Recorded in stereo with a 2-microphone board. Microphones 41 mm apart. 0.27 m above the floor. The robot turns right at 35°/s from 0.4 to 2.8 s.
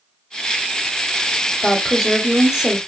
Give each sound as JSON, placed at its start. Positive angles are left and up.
{"t": 1.6, "sound": "a woman speaking", "side_deg": 0, "distance_m": 0.9}